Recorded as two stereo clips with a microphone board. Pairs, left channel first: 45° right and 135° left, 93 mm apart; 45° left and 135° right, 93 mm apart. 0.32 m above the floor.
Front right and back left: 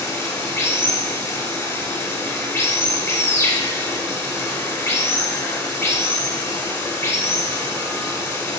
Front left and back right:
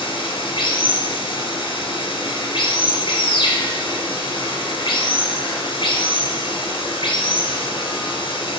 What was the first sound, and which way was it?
Running water, 15° left.